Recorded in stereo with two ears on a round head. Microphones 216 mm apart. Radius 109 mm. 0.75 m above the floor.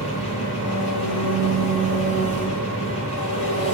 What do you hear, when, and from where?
0.0 s an engine running: 25° left (ahead or behind), 9.5 m